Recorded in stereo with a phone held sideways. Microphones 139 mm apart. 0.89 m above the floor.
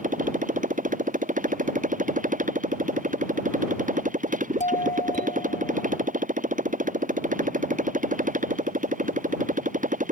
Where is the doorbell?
60° left (ahead or behind).